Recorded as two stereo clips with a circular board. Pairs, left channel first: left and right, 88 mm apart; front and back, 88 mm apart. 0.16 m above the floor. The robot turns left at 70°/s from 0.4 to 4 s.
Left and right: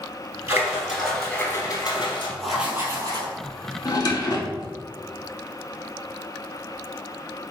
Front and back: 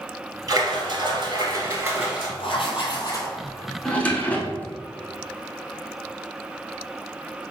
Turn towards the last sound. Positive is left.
turn(degrees=70)